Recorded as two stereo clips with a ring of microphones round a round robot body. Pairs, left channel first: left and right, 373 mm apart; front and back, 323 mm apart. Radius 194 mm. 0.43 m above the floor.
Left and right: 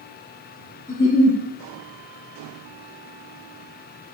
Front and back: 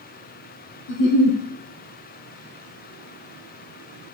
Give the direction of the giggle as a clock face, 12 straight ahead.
12 o'clock.